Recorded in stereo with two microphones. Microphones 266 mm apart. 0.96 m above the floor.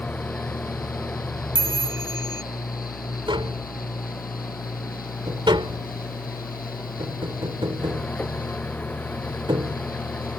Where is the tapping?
15° right (ahead or behind).